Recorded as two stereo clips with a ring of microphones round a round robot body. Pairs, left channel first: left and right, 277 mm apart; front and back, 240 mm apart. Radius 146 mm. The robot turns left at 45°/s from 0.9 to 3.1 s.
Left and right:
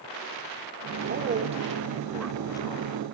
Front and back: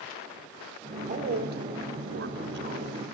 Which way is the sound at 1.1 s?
130° right.